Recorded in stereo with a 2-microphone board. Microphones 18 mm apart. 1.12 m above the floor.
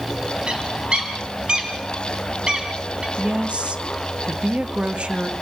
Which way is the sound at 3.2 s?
80° right.